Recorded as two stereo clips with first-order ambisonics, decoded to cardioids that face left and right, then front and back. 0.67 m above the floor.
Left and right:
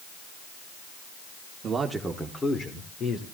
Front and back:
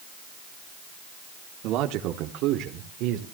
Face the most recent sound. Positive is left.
turn(degrees=145)